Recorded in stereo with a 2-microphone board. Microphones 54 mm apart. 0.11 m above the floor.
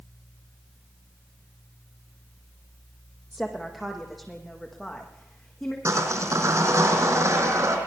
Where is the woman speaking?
5° right (ahead or behind), 4 m; by 5.8 s 5° left (ahead or behind), 6.5 m.